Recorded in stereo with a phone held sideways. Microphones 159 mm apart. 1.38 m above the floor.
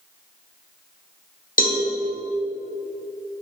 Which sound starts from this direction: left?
A cowbell, at 1.6 s.